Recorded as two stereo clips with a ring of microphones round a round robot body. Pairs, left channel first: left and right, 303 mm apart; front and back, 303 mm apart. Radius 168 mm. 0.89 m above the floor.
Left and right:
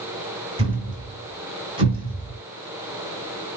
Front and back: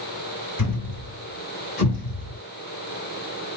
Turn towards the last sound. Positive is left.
turn(degrees=-20)